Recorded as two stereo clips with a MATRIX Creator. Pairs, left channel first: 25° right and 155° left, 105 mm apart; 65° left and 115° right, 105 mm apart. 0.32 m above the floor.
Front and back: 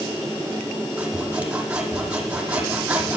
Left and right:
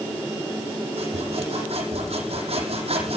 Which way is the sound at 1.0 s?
125° right.